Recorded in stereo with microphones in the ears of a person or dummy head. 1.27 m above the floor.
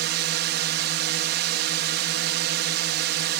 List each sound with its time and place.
0.0 s a drone: 55° right (ahead or behind)